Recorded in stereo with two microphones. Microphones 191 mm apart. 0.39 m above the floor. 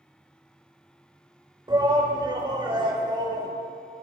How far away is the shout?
About 1.3 m.